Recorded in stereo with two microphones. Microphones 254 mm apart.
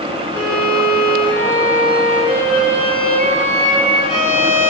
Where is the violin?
40° left (ahead or behind), 1.5 m.